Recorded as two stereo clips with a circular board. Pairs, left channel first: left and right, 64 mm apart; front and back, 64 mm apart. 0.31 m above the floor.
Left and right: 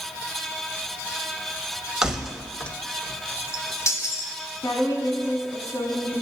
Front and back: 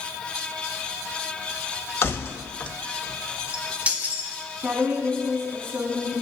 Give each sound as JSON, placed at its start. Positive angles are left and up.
{"t": 2.0, "sound": "keys jangling", "azimuth_deg": -15, "distance_m": 0.9}
{"t": 4.6, "sound": "a woman speaking", "azimuth_deg": 120, "distance_m": 3.0}